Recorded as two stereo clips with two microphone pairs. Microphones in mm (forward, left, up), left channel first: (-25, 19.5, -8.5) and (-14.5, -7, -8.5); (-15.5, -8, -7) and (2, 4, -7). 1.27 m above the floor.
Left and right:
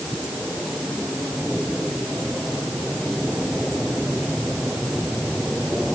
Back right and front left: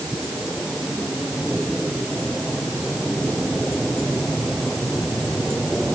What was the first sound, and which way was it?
Only background noise.